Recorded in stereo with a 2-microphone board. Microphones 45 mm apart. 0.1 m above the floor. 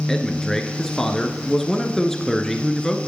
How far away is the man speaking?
About 1.1 m.